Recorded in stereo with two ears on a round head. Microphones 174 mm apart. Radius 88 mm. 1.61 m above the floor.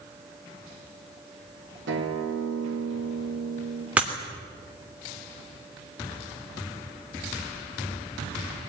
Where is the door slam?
No door slam in this recording.